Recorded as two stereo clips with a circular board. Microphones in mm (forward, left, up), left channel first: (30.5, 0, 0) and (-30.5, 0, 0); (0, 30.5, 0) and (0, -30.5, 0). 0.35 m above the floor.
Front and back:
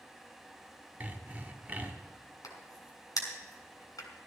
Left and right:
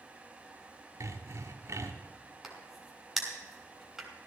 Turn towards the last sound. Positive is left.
turn(degrees=0)